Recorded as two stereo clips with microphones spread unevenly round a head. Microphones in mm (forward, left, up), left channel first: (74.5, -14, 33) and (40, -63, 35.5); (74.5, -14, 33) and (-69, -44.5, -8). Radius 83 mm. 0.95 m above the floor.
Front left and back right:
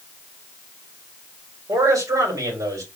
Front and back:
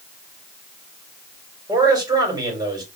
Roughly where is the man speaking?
Right.